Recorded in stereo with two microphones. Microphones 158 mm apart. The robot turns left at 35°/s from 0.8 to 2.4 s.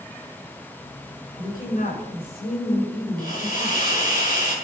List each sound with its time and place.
1.4 s a woman speaking: 135° left, 6 m; by 4.0 s 95° left, 6 m
3.2 s a hiss: 65° left (ahead or behind), 6.5 m